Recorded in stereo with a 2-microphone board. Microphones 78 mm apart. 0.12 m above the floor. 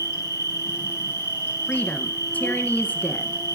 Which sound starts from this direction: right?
An insect, at 0.0 s.